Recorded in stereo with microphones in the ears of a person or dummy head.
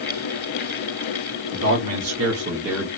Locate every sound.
1.5 s a man speaking: 70° right (ahead or behind), 1.6 m; by 2.9 s centre (ahead or behind), 0.8 m